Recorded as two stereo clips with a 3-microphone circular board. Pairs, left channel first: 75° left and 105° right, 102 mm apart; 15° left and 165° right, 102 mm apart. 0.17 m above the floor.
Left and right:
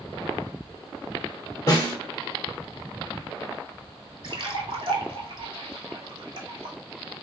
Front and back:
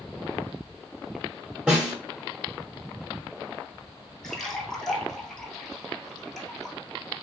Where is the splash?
70° right, 0.8 m.